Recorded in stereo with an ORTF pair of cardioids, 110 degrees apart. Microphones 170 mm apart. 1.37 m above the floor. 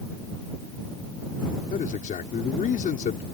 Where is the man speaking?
50° left.